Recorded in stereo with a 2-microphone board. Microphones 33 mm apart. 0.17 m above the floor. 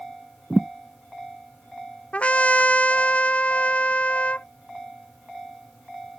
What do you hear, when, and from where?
0.5 s a thud: 10° left (ahead or behind)
2.1 s a trumpet: 40° left (ahead or behind)